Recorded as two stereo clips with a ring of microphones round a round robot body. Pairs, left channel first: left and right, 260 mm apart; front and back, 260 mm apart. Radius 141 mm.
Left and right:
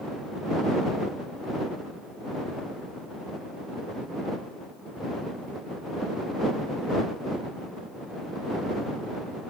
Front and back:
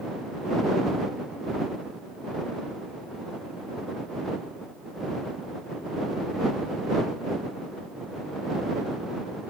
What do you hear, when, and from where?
Only background noise.